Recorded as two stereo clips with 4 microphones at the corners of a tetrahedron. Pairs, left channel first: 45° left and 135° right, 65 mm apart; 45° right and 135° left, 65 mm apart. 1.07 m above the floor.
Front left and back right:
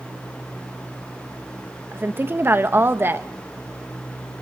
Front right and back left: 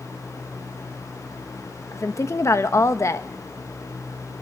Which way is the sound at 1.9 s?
80° right.